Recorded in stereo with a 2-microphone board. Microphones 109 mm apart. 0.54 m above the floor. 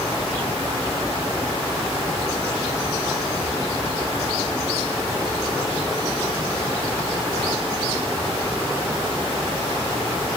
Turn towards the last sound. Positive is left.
No sound to turn to.